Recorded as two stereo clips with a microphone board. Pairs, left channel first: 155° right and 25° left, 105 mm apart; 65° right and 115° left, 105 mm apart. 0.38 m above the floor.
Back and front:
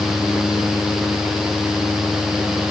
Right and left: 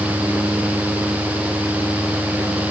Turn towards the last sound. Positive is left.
No sound to turn to.